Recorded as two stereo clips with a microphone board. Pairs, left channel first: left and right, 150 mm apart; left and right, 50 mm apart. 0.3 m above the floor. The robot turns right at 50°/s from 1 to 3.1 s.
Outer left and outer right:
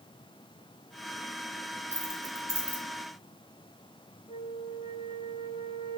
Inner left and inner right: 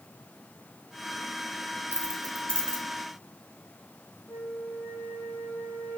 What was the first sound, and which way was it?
Keys jangling, 45° left (ahead or behind).